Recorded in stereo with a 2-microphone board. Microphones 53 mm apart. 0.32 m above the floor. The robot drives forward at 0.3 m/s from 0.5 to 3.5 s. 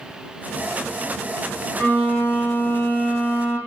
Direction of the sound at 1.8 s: 35° left (ahead or behind).